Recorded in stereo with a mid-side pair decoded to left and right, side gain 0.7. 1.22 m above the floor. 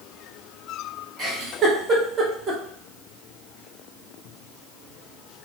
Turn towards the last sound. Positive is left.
turn(degrees=-35)